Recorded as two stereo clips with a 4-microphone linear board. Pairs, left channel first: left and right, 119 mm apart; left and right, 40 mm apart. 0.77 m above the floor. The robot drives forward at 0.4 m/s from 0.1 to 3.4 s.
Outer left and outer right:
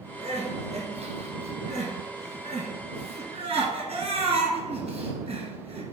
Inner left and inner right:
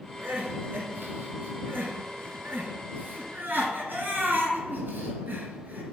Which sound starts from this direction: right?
Crying, at 0.2 s.